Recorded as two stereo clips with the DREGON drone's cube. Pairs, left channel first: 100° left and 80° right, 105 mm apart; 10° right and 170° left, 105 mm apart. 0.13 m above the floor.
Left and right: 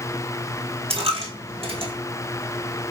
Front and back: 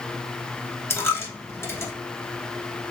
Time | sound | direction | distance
0.9 | a dropped coin | 75° right | 1.0 m